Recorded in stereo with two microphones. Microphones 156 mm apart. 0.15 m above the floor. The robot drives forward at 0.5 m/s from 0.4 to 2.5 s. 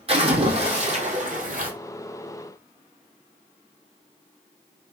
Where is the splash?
40° right (ahead or behind), 1.6 m; by 1.7 s 60° right (ahead or behind), 1.2 m.